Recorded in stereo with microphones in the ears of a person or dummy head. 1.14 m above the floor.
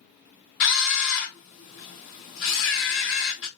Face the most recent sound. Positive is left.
turn(degrees=50)  # may be behind; listen again after turning